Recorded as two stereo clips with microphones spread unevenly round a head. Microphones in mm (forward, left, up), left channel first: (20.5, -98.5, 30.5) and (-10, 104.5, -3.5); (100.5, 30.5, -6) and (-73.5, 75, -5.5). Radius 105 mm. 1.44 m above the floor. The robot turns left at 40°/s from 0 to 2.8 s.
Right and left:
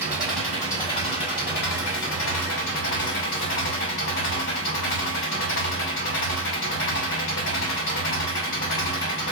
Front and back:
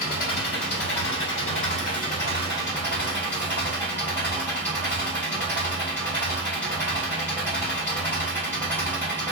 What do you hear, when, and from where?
0.0 s an engine running: 15° left, 2.5 m; by 9.3 s 95° right, 2.5 m